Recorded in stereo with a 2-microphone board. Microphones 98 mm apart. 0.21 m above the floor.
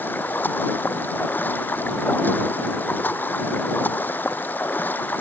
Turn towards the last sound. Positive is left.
turn(degrees=20)  # may be behind; listen again after turning